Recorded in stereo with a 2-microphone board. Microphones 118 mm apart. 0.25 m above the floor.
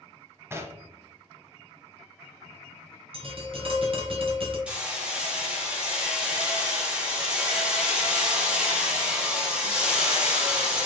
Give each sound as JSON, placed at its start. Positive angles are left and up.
{"t": 0.5, "sound": "knocking", "side_deg": -20, "distance_m": 0.7}
{"t": 3.1, "sound": "tapping", "side_deg": -50, "distance_m": 1.4}
{"t": 4.7, "sound": "hammering", "side_deg": -10, "distance_m": 1.7}